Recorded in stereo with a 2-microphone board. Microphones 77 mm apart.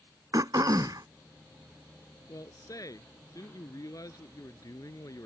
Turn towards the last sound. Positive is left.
turn(degrees=50)  # may be behind; listen again after turning